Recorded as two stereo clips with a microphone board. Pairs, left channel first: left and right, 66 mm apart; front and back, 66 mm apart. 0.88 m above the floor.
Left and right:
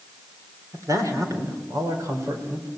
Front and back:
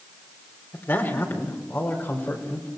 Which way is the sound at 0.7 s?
55° right.